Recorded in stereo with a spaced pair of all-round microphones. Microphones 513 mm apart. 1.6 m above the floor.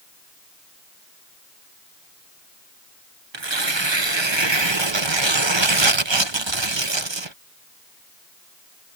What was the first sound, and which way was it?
Tearing paper, 55° right (ahead or behind).